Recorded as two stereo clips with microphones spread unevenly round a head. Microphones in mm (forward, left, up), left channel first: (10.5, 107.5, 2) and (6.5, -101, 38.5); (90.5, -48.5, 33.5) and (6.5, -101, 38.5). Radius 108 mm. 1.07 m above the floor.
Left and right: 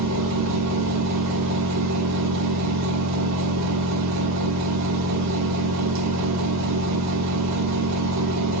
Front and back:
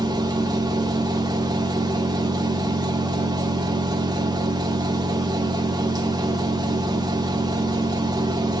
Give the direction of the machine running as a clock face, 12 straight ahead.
3 o'clock.